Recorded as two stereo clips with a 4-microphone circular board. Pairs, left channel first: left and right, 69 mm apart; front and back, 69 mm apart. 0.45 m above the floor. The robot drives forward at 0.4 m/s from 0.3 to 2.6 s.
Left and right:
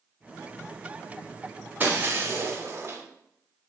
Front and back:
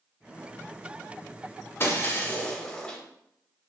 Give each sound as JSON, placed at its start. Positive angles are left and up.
{"t": 1.8, "sound": "breaking glass", "azimuth_deg": -35, "distance_m": 0.7}